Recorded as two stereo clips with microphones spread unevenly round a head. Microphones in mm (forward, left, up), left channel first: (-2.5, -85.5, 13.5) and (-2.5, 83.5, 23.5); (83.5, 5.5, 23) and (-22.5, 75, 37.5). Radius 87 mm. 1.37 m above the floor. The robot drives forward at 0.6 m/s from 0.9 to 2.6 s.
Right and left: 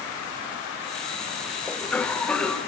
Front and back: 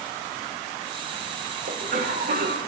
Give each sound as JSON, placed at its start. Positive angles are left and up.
{"t": 1.7, "sound": "a cough", "azimuth_deg": -170, "distance_m": 1.5}